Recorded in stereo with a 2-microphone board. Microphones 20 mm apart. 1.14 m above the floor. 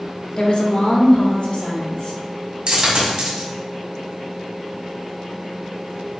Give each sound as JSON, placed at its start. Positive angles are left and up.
{"t": 0.4, "sound": "a woman speaking", "side_deg": 45, "distance_m": 1.0}
{"t": 2.7, "sound": "a dropped coin", "side_deg": -55, "distance_m": 1.8}